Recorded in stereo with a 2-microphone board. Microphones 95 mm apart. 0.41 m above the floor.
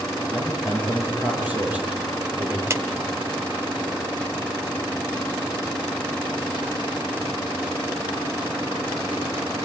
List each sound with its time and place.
0.3 s a man speaking: 15° right (ahead or behind), 6.5 m
2.7 s a clap: 30° right (ahead or behind), 1.1 m